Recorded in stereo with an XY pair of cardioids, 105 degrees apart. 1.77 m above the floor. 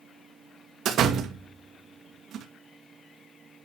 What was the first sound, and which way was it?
A door slam, 70° right.